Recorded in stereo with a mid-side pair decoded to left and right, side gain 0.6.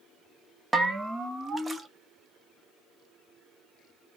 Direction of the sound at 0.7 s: 15° right.